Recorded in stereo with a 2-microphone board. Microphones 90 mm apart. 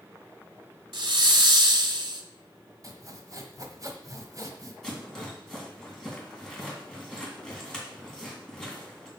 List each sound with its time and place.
0.9 s a hiss: 70° right (ahead or behind), 1.0 m
2.8 s sawing: 40° right (ahead or behind), 1.2 m
4.8 s a rattle: 5° left (ahead or behind), 3 m